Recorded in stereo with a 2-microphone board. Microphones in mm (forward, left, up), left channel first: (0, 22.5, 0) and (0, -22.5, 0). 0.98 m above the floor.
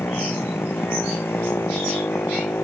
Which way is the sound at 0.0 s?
60° left (ahead or behind).